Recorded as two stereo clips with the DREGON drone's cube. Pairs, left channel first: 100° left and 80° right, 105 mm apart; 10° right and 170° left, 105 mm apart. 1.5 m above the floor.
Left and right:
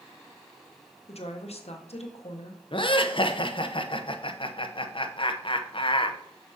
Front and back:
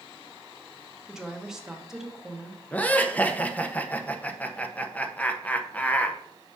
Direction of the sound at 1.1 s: 85° left.